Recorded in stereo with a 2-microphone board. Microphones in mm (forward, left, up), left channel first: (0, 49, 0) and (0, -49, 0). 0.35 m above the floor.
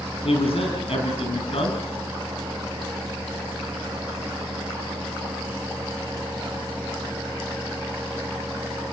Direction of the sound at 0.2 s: 70° left (ahead or behind).